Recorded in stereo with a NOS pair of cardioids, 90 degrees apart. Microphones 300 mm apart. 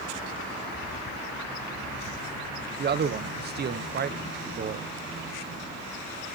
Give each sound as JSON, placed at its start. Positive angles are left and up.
{"t": 2.8, "sound": "a man speaking", "azimuth_deg": -35, "distance_m": 0.6}